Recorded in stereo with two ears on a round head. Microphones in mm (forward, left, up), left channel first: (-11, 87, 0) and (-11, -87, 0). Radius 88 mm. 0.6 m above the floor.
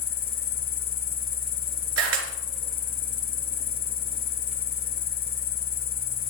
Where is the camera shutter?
90° right, 3.5 m.